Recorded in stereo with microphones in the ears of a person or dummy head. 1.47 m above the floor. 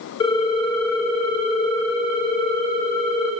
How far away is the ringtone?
About 1.0 m.